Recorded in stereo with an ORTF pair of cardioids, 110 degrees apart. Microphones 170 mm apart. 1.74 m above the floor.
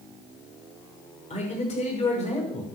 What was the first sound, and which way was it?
A man speaking, 40° left.